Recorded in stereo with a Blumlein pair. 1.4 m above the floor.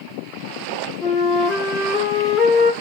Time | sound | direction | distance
1.0 | a flute | 15° left | 1.0 m